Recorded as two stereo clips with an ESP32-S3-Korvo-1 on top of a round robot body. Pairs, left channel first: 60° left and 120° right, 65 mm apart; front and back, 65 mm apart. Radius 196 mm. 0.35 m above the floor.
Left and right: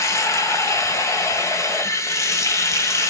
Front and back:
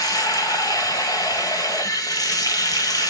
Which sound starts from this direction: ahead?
Running water, at 0.0 s.